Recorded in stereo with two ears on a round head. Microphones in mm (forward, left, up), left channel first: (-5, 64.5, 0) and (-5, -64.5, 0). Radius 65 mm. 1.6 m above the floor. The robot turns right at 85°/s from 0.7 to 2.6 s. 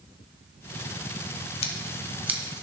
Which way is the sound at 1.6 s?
45° left (ahead or behind).